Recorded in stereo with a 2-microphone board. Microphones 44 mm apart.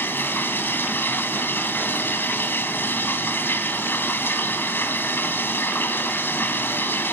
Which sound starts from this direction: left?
Running water, at 0.0 s.